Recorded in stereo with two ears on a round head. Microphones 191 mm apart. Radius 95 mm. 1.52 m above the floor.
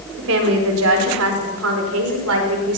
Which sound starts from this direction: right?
A woman speaking, at 0.2 s.